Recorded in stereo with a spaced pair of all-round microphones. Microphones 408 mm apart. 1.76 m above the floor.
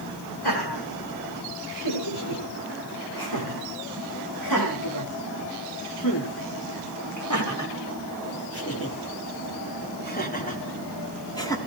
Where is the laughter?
70° left (ahead or behind), 8.5 m; by 11.6 s 10° left (ahead or behind), 4 m.